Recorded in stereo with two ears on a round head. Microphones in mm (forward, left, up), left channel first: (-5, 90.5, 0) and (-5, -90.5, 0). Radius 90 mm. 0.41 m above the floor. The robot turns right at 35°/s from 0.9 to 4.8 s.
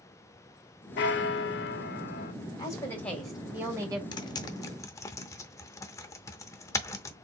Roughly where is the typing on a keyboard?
Left.